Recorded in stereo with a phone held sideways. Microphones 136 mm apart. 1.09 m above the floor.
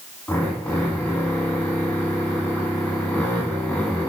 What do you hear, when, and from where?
0.3 s a drill: 10° left (ahead or behind), 10 m